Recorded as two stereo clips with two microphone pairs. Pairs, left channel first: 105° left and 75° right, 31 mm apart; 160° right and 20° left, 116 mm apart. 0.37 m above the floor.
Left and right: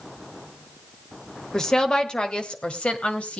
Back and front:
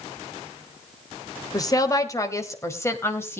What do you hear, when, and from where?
1.5 s a woman speaking: 160° left, 1.8 m; by 3.4 s 135° left, 2.5 m